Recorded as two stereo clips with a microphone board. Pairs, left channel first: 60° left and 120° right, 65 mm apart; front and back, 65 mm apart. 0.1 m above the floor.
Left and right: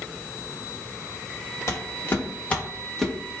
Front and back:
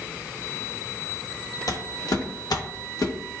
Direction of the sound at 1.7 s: 20° left.